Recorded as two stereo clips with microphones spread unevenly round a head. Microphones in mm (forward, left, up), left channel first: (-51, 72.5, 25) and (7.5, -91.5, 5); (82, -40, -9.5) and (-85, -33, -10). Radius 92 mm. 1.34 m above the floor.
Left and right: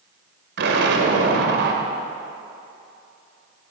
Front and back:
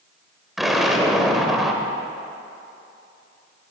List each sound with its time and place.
0.6 s an explosion: 95° right, 2.5 m